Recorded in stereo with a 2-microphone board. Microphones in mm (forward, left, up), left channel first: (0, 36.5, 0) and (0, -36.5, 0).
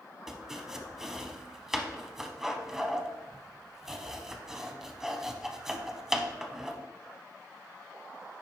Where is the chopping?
5° right (ahead or behind), 0.7 m.